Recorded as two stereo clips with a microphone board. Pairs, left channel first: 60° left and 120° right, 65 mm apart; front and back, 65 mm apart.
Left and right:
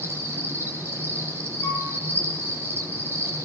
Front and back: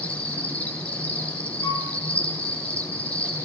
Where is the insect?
65° right, 7 m.